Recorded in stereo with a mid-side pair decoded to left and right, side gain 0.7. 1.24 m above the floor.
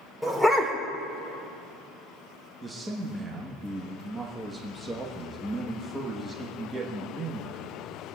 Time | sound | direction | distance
0.2 | a dog barking | straight ahead | 1.8 m
2.6 | a man speaking | 15° right | 1.3 m